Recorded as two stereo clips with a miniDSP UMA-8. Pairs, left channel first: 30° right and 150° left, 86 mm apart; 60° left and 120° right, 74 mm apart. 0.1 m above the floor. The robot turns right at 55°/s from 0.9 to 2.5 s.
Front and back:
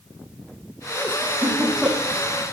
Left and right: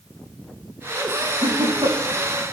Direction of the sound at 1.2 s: 155° right.